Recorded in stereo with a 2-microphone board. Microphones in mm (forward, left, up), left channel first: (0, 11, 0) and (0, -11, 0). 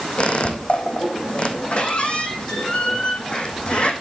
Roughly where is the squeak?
Left.